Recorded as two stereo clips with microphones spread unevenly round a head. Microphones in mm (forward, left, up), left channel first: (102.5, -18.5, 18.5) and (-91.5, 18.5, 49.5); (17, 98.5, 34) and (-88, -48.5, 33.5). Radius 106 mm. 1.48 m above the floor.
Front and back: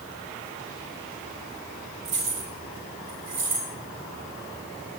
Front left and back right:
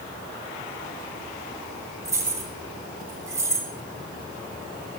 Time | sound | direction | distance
2.0 | keys jangling | 160° left | 3.5 m